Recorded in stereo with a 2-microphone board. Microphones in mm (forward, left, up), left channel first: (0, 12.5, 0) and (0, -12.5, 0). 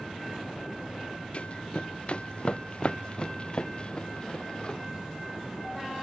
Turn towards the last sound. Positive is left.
turn(degrees=35)  # may be behind; listen again after turning